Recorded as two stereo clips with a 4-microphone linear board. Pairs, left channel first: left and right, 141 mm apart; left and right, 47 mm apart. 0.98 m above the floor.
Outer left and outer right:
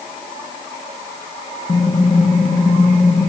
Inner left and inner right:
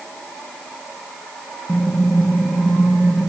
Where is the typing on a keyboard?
40° left (ahead or behind), 1.0 m.